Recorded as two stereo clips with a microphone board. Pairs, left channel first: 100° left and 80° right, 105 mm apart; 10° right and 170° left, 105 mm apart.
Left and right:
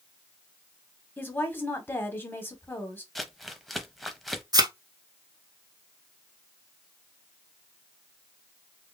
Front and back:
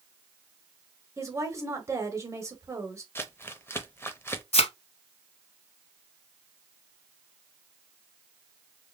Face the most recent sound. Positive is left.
turn(degrees=-25)